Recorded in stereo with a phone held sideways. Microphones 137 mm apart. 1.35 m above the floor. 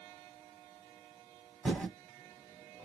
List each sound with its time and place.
1.6 s typing on a keyboard: 5° left (ahead or behind), 1.3 m